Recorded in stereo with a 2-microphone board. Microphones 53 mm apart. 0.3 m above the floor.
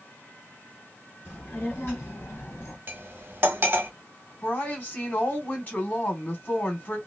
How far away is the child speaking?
About 1.8 m.